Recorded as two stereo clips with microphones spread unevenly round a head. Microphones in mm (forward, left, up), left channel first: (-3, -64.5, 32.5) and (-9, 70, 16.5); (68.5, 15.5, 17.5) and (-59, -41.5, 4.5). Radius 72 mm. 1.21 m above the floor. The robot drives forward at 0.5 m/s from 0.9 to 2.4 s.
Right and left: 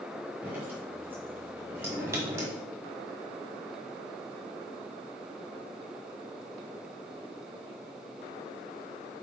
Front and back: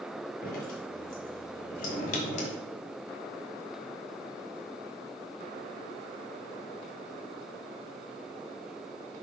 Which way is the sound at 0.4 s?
15° left.